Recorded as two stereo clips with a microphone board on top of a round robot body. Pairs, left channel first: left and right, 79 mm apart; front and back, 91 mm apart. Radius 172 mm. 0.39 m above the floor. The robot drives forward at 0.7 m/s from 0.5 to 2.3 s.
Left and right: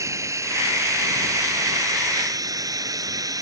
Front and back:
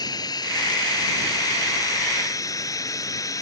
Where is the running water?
40° right; by 3.4 s 50° right.